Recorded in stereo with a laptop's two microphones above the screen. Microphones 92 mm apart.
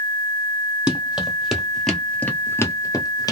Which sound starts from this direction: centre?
Running footsteps, at 0.9 s.